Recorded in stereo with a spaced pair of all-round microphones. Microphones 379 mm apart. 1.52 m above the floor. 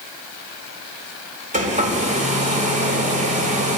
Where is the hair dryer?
20° right (ahead or behind), 3.5 m.